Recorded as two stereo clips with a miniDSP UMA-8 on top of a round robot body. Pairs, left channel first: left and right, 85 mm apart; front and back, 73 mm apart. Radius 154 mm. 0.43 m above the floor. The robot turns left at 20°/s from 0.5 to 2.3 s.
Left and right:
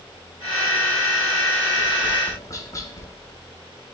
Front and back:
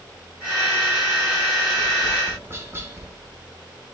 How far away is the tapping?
About 0.6 m.